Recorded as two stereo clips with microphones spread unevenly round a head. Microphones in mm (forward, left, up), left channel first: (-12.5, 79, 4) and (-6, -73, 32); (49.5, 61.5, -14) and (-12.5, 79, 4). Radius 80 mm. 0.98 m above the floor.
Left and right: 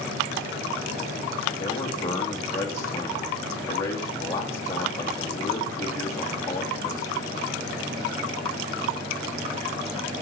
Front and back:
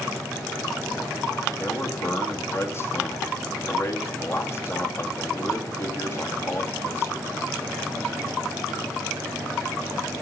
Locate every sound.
1.6 s a man speaking: 20° left, 2.5 m